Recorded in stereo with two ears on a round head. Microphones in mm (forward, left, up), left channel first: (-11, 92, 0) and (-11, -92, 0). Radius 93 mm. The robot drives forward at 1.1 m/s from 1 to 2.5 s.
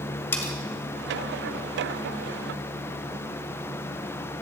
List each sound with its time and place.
0.3 s cutlery clinking: 10° left (ahead or behind), 1.8 m